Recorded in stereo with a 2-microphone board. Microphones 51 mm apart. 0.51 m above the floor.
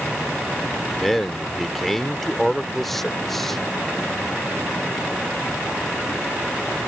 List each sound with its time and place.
1.0 s a man speaking: 5° left (ahead or behind)